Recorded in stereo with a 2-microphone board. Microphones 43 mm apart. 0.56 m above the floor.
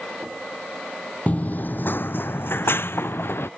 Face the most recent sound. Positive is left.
turn(degrees=65)  # may be behind; listen again after turning